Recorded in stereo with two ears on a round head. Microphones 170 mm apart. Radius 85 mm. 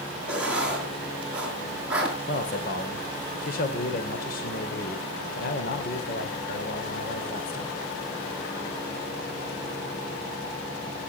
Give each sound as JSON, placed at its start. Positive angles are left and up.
{"t": 0.3, "sound": "writing", "side_deg": -5, "distance_m": 5.5}
{"t": 2.3, "sound": "a man speaking", "side_deg": 50, "distance_m": 2.5}